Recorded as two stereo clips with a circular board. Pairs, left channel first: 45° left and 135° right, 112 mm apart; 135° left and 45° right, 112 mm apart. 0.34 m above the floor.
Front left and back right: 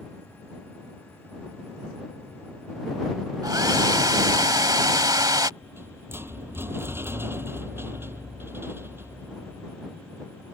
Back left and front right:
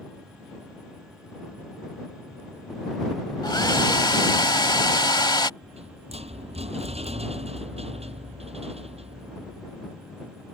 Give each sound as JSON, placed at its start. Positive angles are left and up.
{"t": 3.4, "sound": "a hair dryer", "azimuth_deg": 175}
{"t": 5.6, "sound": "a rattle", "azimuth_deg": -65}